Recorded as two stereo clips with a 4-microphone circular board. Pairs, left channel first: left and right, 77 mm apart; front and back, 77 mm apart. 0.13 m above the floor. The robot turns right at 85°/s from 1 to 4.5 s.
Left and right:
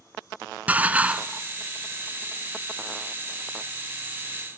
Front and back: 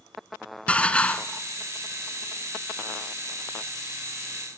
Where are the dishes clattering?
50° right, 0.8 m; by 1.4 s 15° right, 0.8 m.